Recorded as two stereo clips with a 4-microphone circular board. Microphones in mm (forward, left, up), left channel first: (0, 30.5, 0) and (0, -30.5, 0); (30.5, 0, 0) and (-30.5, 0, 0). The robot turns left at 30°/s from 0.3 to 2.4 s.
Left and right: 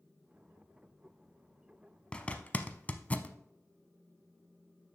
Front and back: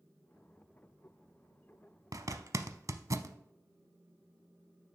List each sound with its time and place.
2.1 s a zipper: 165° left, 0.5 m; by 3.4 s 155° left, 0.5 m